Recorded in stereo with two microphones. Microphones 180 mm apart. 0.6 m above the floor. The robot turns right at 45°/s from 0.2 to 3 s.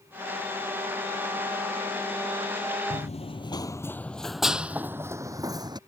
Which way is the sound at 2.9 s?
45° left (ahead or behind).